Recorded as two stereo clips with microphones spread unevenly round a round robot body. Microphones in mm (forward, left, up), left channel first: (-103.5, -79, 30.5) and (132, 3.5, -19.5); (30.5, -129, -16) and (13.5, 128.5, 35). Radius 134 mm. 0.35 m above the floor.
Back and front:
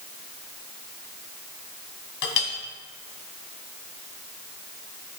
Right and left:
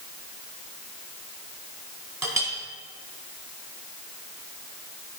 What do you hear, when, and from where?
2.2 s a clink: straight behind, 1.5 m